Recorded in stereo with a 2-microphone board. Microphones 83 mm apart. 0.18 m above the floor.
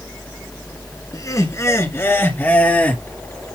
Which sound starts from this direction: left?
Laughter, at 1.1 s.